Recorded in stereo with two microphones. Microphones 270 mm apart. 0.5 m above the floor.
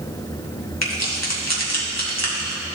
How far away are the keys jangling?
About 2 m.